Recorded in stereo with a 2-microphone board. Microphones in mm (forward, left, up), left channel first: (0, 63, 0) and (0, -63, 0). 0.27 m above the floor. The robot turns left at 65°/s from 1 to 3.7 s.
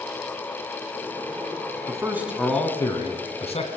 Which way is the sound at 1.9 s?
145° right.